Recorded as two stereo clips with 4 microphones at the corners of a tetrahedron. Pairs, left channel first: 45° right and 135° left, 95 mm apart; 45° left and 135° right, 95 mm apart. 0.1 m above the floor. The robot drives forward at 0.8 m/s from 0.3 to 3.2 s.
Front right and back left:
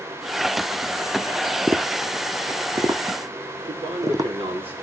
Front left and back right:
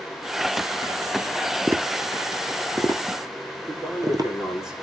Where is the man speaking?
140° left, 6.5 m.